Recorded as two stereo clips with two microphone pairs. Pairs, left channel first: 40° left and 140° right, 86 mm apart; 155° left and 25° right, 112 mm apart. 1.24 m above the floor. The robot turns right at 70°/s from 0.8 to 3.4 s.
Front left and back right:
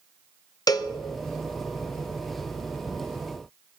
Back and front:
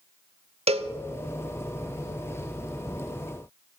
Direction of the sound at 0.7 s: 5° right.